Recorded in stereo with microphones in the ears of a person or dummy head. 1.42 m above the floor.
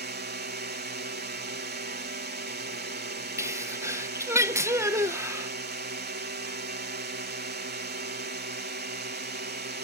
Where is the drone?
45° right (ahead or behind).